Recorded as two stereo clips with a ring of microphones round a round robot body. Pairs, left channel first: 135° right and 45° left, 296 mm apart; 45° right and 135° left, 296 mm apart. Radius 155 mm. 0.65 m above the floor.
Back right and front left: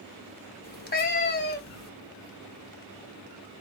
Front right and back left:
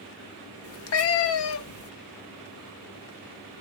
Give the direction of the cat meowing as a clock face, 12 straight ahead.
3 o'clock.